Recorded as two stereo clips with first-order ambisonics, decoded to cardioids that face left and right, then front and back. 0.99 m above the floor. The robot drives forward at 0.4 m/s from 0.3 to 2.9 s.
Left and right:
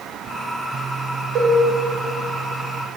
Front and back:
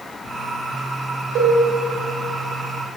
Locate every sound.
1.4 s a cowbell: 140° right, 3.5 m